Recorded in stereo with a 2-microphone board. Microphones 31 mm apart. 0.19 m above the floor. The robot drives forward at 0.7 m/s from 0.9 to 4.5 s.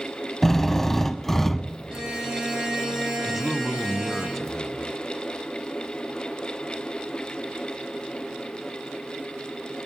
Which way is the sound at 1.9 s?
30° right (ahead or behind).